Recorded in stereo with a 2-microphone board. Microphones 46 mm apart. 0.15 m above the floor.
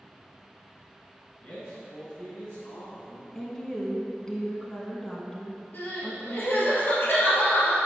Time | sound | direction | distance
1.4 | a man speaking | 30° left (ahead or behind) | 1.4 m
3.4 | a woman speaking | 15° left (ahead or behind) | 1.0 m
5.7 | crying | 50° left (ahead or behind) | 2.5 m